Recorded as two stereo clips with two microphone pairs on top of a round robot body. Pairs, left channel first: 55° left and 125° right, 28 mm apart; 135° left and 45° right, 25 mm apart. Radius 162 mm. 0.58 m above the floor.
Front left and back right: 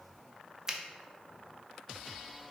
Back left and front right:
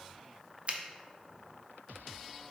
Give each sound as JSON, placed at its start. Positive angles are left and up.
{"t": 0.7, "sound": "a finger snap", "azimuth_deg": -50, "distance_m": 0.6}